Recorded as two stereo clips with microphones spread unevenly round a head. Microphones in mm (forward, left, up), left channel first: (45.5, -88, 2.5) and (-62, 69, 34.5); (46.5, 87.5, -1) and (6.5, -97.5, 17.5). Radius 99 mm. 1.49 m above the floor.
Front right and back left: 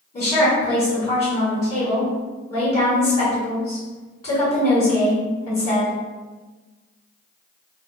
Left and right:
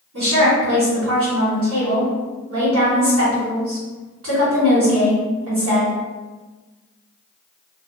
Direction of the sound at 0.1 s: 125° right.